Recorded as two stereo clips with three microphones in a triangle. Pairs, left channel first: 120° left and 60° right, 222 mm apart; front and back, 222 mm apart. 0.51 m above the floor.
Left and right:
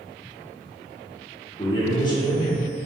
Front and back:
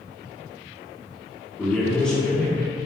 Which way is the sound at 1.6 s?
80° left.